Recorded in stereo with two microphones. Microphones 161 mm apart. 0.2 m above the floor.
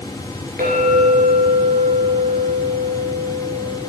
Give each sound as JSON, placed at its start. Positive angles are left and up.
{"t": 0.6, "sound": "a clink", "side_deg": -65, "distance_m": 2.0}